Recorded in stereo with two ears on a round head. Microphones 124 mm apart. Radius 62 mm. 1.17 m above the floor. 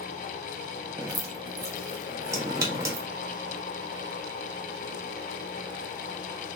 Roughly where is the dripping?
Right.